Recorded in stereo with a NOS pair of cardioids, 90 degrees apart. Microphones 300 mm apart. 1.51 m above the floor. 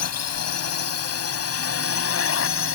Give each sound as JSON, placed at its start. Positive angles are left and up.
{"t": 0.0, "sound": "a drone", "azimuth_deg": 60}